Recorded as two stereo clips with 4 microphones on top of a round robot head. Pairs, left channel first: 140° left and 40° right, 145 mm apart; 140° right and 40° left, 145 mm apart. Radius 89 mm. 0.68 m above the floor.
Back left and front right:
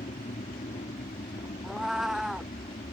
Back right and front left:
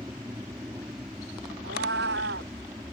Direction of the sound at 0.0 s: 110° left.